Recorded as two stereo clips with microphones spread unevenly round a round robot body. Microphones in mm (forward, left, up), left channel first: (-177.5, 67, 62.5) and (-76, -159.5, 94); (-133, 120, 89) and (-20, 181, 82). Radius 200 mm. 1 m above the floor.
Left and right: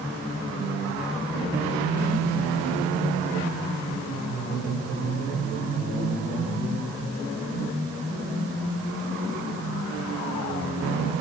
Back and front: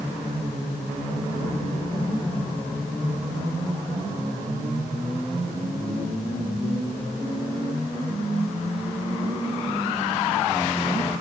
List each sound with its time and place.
Only background noise.